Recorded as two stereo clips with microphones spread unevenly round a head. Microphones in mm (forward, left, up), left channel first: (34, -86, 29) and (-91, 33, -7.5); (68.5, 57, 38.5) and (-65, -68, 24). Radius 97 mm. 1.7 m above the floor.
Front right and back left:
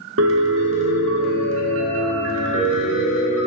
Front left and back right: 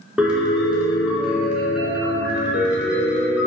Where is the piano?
135° left, 1.5 m.